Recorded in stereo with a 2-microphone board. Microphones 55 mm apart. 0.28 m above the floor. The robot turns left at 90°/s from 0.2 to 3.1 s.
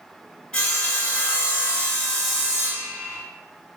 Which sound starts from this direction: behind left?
Sawing, at 0.5 s.